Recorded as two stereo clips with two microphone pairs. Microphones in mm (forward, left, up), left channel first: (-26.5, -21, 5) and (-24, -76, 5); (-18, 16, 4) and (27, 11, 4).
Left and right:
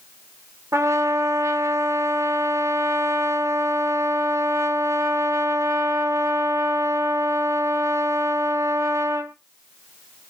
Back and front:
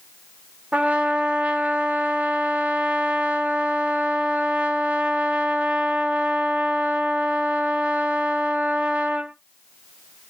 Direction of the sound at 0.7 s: 65° right.